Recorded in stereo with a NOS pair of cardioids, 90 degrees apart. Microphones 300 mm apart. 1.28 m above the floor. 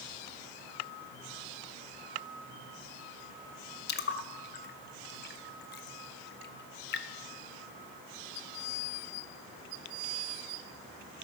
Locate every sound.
3.9 s a splash: 35° left, 0.7 m